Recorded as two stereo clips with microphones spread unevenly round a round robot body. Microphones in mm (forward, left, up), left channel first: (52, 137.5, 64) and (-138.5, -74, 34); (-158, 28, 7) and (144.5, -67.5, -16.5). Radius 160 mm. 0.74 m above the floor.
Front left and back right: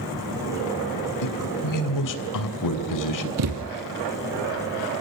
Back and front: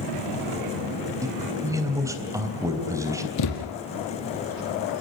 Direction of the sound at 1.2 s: 65° left.